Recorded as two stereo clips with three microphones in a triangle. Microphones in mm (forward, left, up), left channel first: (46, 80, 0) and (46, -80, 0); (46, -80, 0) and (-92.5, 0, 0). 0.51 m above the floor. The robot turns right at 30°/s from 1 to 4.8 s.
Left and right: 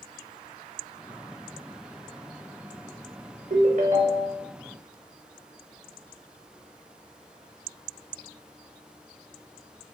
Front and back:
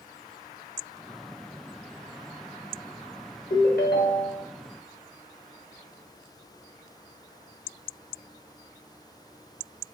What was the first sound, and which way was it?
A ringtone, 60° right.